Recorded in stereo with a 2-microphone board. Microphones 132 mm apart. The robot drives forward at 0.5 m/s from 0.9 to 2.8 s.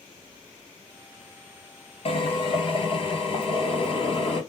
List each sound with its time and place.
2.0 s a drill: 50° left (ahead or behind), 1.8 m; by 4.4 s 45° left (ahead or behind), 2.0 m